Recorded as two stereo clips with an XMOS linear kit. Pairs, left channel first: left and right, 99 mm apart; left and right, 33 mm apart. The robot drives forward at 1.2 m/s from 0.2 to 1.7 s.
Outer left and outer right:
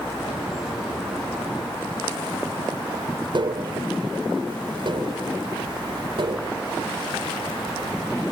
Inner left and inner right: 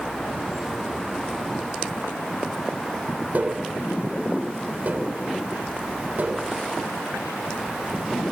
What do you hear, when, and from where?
3.3 s tapping: 55° right (ahead or behind)